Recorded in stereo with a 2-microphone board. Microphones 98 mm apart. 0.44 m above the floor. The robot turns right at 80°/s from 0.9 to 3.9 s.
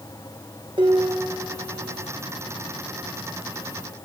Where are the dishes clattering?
125° right, 5 m; by 1.8 s 60° right, 5 m.